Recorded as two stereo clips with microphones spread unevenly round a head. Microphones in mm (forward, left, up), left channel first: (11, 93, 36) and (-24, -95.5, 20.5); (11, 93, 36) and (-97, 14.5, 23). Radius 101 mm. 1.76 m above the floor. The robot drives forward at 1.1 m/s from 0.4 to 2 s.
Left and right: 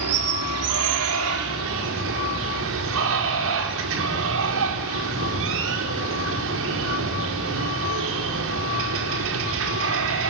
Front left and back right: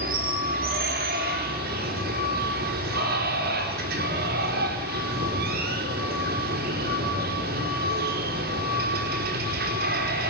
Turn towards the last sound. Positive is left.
turn(degrees=-120)